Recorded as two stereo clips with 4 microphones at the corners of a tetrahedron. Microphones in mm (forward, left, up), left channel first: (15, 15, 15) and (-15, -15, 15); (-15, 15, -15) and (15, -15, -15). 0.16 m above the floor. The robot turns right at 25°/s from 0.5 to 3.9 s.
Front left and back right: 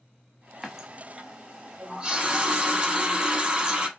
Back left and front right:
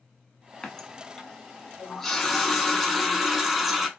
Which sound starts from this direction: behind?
A running tap, at 0.6 s.